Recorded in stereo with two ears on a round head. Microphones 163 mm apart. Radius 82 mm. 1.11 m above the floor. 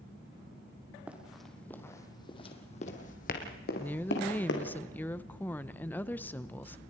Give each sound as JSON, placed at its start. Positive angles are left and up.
{"t": 1.1, "sound": "running footsteps", "side_deg": -10, "distance_m": 2.5}
{"t": 3.8, "sound": "a woman speaking", "side_deg": 10, "distance_m": 0.8}